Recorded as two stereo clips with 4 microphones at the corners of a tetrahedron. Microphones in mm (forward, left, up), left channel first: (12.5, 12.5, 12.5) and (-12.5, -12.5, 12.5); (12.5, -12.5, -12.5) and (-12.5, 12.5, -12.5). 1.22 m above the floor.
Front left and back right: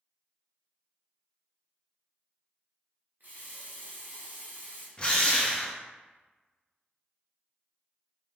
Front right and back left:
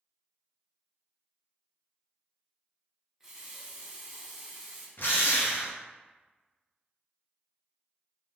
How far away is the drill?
About 0.5 m.